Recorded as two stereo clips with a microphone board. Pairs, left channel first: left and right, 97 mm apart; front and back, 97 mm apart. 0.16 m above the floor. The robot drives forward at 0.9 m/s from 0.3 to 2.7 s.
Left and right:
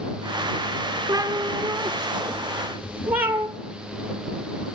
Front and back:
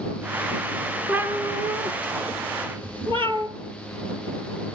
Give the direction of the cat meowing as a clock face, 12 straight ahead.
4 o'clock.